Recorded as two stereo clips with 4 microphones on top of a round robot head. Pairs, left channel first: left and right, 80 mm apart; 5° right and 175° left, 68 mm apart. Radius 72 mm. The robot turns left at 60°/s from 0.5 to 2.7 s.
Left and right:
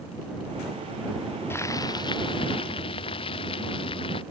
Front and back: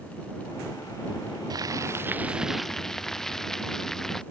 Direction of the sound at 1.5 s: 150° left.